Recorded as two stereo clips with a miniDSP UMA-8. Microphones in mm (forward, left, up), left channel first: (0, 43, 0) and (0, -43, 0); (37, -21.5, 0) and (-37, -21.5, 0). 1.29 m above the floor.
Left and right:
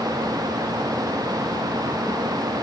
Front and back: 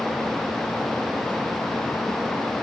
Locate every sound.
Only background noise.